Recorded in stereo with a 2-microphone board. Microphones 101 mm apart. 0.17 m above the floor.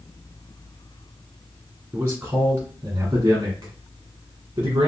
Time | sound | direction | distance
1.9 | a man speaking | 20° right (ahead or behind) | 1.7 m